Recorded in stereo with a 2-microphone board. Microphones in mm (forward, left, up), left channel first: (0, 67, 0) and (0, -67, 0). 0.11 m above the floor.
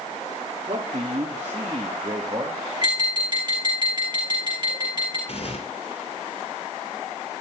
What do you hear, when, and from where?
0.7 s a man speaking: 50° right (ahead or behind), 1.9 m; by 2.6 s 30° right (ahead or behind), 2.5 m
2.8 s tapping: 30° right (ahead or behind), 5.5 m
5.3 s tearing paper: 55° left (ahead or behind), 2 m